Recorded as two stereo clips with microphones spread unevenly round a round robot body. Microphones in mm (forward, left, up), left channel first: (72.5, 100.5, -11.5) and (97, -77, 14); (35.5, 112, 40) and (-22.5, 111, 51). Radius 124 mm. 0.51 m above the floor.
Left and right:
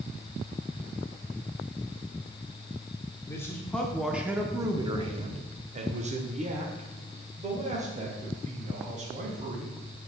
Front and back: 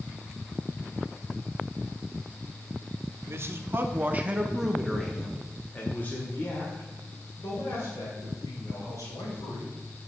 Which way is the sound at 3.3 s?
155° left.